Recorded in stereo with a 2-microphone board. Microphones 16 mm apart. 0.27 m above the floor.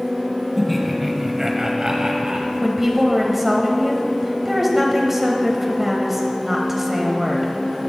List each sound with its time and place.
0.6 s laughter: 5° left (ahead or behind), 1.5 m; by 2.5 s 45° right (ahead or behind), 1.6 m
2.6 s a woman speaking: 15° right (ahead or behind), 1.0 m